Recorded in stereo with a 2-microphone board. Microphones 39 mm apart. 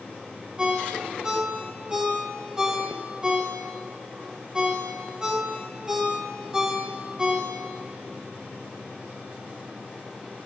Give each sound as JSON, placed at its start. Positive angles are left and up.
{"t": 0.6, "sound": "a ringtone", "side_deg": -20, "distance_m": 1.2}